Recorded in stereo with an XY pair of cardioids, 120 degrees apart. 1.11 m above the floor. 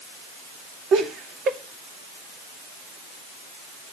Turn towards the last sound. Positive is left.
turn(degrees=-60)